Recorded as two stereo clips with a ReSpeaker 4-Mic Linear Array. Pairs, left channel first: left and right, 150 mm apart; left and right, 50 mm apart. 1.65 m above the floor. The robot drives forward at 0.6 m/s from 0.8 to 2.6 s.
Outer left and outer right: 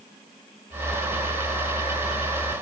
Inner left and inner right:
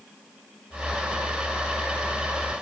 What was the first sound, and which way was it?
Only background noise.